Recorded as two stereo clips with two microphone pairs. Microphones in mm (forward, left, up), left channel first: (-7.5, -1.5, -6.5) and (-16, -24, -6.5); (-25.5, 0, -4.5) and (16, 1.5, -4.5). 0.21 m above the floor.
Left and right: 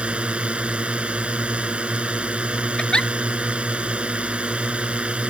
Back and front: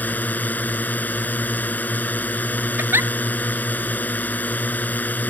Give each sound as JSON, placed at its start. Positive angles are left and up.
{"t": 0.0, "sound": "a drone", "azimuth_deg": -135}
{"t": 2.8, "sound": "a giggle", "azimuth_deg": 15}